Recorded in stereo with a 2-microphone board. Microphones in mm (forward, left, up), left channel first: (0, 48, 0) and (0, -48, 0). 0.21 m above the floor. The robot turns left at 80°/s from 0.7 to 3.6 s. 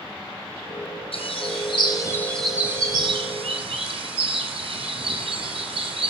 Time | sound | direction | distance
1.1 | a bird | 105° left | 2.0 m